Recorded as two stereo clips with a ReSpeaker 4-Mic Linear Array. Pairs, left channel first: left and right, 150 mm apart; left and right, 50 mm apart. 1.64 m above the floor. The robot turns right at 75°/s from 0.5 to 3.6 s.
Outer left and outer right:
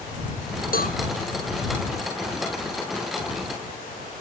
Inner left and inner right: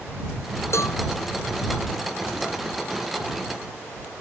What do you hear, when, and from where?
0.7 s a cowbell: 75° left (ahead or behind); by 1.0 s 85° left